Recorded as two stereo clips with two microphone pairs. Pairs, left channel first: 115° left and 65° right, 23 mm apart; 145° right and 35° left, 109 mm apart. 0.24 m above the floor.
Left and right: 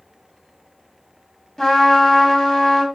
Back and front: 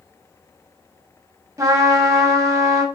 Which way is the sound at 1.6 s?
60° left.